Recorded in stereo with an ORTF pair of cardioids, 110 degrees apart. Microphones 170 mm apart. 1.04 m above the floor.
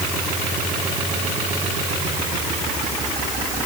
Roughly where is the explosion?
I don't hear an explosion.